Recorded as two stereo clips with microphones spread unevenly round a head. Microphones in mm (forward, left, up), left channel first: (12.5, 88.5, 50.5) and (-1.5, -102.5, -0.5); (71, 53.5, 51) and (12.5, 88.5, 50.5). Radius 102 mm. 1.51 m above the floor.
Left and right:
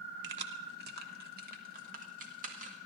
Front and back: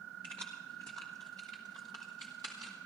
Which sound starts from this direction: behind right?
Keys jangling, at 0.2 s.